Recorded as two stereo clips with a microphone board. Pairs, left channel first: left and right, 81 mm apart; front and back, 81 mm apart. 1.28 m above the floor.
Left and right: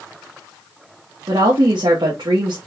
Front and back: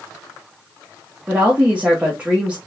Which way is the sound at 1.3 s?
105° right.